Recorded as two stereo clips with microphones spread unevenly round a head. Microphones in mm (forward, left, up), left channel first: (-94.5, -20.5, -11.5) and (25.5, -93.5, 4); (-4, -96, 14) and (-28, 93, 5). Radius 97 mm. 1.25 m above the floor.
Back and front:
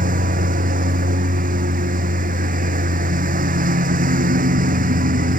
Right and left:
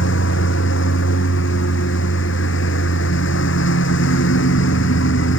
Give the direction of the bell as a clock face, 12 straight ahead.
No bell in this recording.